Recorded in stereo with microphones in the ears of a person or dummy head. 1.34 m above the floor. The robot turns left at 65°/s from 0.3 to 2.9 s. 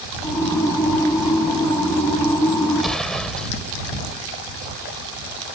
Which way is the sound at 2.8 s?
5° right (ahead or behind).